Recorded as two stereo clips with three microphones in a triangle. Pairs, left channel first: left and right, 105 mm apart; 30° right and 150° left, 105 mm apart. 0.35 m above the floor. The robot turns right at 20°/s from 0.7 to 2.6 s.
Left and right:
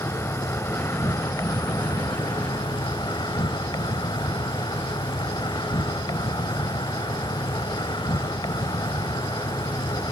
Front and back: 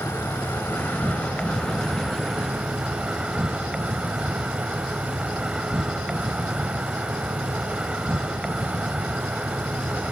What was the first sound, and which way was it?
An insect, 30° left.